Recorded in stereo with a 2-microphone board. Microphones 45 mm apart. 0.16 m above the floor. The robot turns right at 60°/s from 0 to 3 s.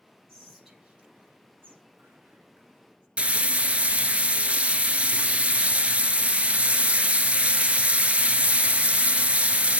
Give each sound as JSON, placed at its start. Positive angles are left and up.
{"t": 0.3, "sound": "whispering", "side_deg": 15, "distance_m": 2.5}
{"t": 3.2, "sound": "frying", "side_deg": -30, "distance_m": 0.6}